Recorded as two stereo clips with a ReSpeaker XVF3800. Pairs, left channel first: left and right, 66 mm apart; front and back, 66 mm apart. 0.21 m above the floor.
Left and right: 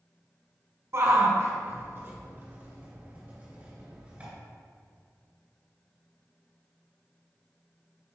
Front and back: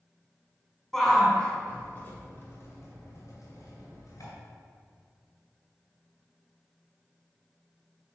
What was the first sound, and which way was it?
A shout, 85° right.